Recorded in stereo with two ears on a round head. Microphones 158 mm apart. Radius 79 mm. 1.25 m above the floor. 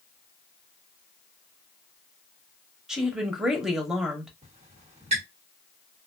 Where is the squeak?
35° right (ahead or behind), 1.4 m.